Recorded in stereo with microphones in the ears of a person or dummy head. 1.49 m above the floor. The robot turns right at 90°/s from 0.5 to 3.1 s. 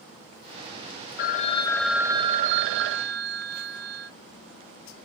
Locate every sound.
1.2 s a phone ringing: 115° left, 0.8 m; by 4.1 s 70° right, 0.8 m